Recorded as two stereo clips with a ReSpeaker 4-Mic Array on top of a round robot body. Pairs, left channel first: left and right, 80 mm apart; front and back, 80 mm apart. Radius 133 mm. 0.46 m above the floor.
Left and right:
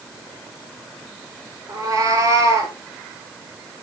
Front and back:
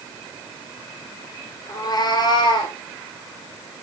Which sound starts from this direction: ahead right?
A cat meowing, at 1.7 s.